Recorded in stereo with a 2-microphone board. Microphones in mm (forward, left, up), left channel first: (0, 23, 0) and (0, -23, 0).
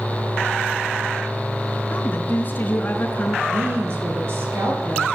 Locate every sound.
1.9 s a woman speaking: 40° left (ahead or behind), 4.5 m
3.5 s a woman speaking: 55° right (ahead or behind), 8.5 m